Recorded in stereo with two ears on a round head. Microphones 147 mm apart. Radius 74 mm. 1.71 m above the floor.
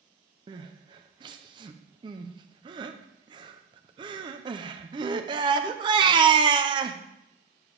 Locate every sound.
0.5 s crying: 30° right (ahead or behind), 0.7 m